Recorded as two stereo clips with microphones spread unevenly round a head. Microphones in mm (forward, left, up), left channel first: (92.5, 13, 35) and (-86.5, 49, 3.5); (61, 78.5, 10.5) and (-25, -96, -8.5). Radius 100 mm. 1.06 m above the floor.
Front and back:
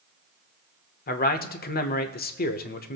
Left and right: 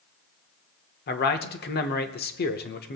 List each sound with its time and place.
1.1 s a man speaking: 30° left, 1.1 m